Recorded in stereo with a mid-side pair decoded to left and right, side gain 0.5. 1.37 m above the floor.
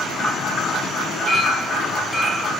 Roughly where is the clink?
Ahead.